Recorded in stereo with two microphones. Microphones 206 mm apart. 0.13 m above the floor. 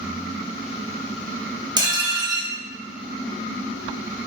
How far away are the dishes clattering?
About 1.0 m.